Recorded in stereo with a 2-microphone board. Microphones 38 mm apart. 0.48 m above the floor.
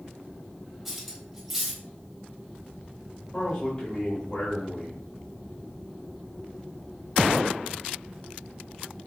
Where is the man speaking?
25° left (ahead or behind), 2 m.